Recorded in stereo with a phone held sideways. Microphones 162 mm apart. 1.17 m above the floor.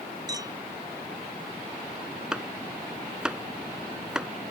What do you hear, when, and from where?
0.3 s a clink: 25° right (ahead or behind)
2.3 s chopping: 5° right (ahead or behind)